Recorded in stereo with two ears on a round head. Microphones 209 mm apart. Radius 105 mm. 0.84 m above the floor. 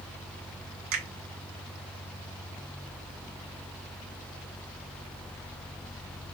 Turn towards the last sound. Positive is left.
turn(degrees=-65)  # may be behind; listen again after turning